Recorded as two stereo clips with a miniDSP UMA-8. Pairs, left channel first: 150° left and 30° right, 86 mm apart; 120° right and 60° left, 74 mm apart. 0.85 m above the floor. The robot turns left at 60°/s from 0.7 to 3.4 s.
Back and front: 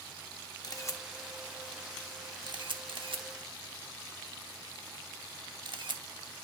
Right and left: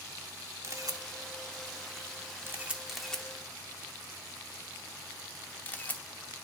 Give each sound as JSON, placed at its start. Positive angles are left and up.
{"t": 0.6, "sound": "a camera shutter", "azimuth_deg": 110, "distance_m": 0.8}